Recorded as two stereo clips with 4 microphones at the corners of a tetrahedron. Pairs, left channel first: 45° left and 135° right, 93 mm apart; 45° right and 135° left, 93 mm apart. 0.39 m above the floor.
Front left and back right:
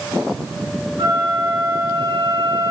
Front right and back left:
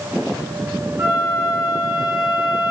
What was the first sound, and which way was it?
A flute, 170° right.